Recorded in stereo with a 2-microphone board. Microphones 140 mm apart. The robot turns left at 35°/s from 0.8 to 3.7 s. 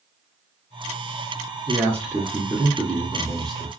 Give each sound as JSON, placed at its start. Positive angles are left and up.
{"t": 1.7, "sound": "a man speaking", "side_deg": -20, "distance_m": 1.1}